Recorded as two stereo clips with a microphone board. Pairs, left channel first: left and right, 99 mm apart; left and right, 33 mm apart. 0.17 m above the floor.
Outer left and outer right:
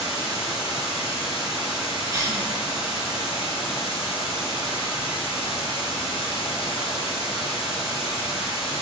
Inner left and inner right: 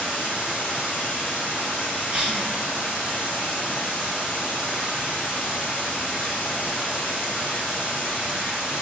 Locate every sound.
0.0 s running water: 65° left (ahead or behind), 1.5 m
2.1 s a cough: 30° right (ahead or behind), 1.6 m